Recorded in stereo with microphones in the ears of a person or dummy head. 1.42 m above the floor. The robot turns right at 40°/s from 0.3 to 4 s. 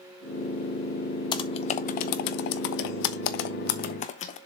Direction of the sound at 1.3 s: 30° left (ahead or behind).